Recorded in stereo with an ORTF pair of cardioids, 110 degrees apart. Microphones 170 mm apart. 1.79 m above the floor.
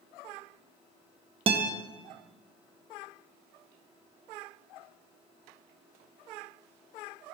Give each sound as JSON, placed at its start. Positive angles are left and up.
{"t": 1.5, "sound": "a guitar", "azimuth_deg": -35, "distance_m": 0.6}